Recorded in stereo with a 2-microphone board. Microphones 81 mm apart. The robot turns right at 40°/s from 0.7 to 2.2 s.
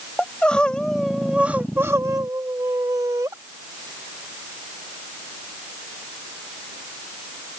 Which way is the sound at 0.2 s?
165° left.